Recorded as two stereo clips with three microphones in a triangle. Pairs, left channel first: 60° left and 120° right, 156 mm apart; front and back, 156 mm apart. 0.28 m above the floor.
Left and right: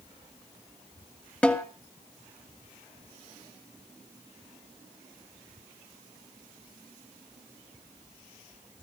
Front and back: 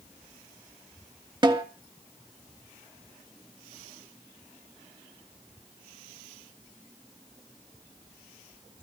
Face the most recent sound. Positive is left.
turn(degrees=135)